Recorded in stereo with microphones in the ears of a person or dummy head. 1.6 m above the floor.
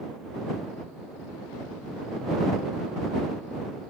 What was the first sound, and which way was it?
Only background noise.